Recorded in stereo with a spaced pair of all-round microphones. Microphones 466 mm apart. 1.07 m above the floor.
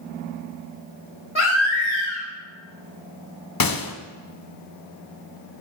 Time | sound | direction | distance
1.4 | a baby crying | 65° left (ahead or behind) | 2.5 m
3.6 | a gunshot | 45° left (ahead or behind) | 0.6 m